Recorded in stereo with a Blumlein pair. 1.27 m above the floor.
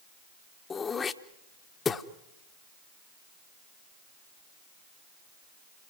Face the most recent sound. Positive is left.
turn(degrees=20)